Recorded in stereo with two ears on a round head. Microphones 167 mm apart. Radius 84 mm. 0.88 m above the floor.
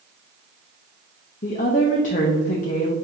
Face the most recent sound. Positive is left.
turn(degrees=45)  # may be behind; listen again after turning